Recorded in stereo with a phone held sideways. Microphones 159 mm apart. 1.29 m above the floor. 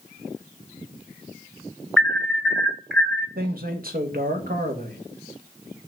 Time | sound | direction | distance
2.0 | an alarm | centre (ahead or behind) | 1.0 m
3.4 | a man speaking | 65° right (ahead or behind) | 1.4 m